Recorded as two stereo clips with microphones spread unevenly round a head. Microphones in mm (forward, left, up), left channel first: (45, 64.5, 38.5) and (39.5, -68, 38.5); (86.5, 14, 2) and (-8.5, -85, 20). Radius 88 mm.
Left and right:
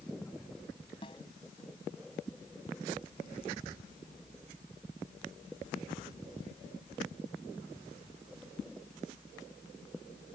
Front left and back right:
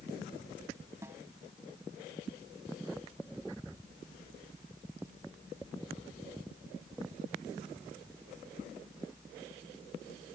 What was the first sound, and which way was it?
A snare drum, 150° left.